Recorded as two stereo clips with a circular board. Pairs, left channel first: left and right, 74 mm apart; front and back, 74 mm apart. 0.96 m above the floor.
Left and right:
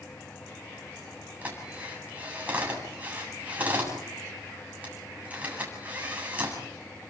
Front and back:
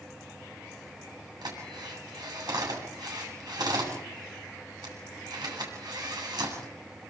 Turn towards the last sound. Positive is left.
turn(degrees=-160)